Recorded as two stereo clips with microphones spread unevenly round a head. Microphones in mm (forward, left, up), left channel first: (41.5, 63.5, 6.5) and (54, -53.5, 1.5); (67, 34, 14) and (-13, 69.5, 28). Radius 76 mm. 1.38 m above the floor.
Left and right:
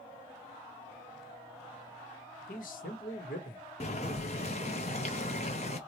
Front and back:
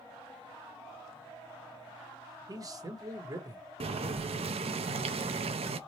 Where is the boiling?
150° left, 0.7 m.